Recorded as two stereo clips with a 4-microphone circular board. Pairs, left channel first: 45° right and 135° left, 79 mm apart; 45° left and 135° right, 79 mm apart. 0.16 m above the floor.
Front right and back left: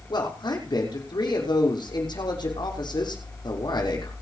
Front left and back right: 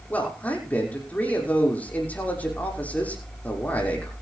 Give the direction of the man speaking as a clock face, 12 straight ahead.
1 o'clock.